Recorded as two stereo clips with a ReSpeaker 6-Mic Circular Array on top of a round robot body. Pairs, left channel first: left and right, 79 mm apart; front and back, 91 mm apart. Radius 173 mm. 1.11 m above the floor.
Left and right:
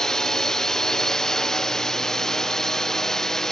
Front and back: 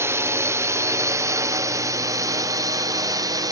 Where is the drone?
165° left; by 3.5 s 170° left.